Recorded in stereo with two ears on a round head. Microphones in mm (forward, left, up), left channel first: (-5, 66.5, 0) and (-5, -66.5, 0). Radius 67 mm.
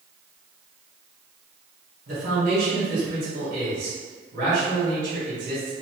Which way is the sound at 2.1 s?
55° right (ahead or behind).